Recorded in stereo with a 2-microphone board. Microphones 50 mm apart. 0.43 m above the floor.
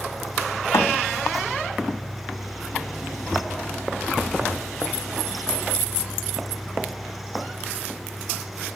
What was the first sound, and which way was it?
A thud, 75° left (ahead or behind).